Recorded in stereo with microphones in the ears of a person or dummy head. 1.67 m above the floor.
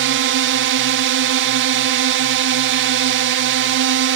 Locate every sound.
0.0 s a drone: 60° right (ahead or behind)